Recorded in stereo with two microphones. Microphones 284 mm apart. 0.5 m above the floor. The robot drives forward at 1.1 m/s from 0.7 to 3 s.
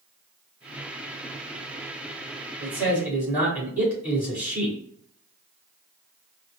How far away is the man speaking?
About 2 m.